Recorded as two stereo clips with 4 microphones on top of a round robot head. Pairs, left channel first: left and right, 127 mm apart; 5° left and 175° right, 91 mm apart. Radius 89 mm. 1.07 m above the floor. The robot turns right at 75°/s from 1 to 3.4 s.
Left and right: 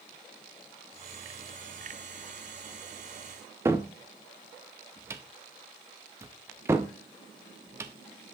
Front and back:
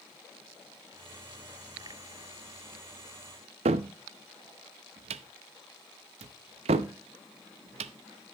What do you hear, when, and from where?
3.6 s a cupboard door: 165° right, 0.5 m